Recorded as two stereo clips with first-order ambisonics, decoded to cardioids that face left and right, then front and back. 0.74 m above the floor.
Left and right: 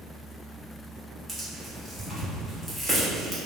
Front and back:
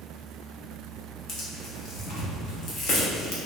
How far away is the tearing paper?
About 0.8 m.